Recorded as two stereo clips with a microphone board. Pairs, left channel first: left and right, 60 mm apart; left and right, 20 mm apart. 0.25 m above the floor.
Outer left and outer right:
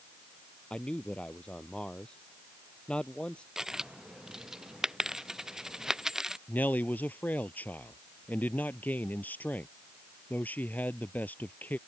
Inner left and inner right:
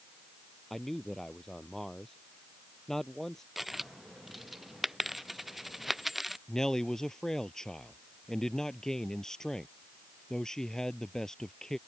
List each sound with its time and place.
0.7 s a man speaking: 20° left (ahead or behind)
3.6 s a dropped coin: 10° right (ahead or behind)
6.5 s a man speaking: 30° left (ahead or behind)